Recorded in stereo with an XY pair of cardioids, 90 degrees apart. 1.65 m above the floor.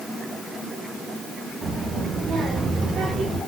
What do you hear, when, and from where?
1.6 s a child speaking: 45° right, 1.8 m; by 3.4 s 75° right, 2.5 m